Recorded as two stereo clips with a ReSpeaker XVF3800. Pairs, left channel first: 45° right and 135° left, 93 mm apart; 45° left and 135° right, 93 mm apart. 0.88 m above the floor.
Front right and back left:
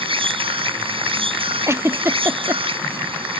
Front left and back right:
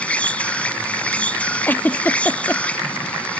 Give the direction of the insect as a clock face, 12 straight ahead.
8 o'clock.